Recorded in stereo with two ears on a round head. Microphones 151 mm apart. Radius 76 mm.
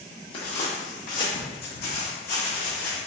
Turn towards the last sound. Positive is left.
turn(degrees=75)  # may be behind; listen again after turning